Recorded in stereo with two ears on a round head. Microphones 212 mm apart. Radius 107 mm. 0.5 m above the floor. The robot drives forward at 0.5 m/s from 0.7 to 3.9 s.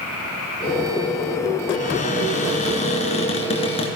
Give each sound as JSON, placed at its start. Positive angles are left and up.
{"t": 1.7, "sound": "a cupboard door", "side_deg": 35, "distance_m": 2.5}